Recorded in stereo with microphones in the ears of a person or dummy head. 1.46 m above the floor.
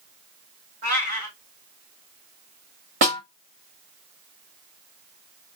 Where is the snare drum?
40° right (ahead or behind), 0.8 m.